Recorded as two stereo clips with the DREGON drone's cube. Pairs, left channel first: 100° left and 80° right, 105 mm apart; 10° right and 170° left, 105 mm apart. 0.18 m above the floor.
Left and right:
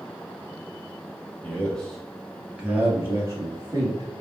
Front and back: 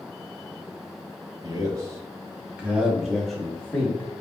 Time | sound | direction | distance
1.4 | a man speaking | 165° left | 1.4 m